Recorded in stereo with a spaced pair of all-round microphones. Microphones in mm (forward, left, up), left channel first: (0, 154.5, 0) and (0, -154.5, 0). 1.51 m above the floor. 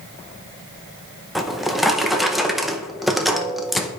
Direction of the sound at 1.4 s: Centre (ahead or behind).